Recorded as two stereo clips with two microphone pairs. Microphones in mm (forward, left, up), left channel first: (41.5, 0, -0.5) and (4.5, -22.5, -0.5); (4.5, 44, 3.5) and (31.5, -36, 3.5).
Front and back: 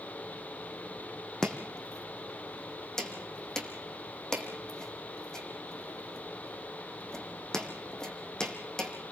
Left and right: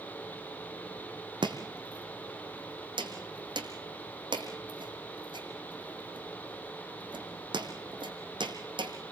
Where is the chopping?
45° right, 3 m.